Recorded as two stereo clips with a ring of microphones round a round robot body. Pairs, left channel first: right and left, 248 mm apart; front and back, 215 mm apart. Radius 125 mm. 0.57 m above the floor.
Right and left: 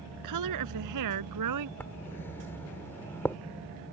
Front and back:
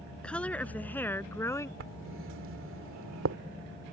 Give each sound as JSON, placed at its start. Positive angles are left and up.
{"t": 0.2, "sound": "a woman speaking", "azimuth_deg": 85}
{"t": 1.8, "sound": "writing", "azimuth_deg": -170}